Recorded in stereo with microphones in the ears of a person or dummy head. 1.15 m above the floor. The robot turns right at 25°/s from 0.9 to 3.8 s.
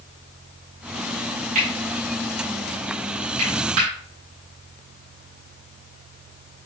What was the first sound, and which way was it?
Cutlery clinking, 45° right (ahead or behind).